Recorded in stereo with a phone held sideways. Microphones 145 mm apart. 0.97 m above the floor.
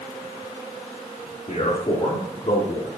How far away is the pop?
No pop in this recording.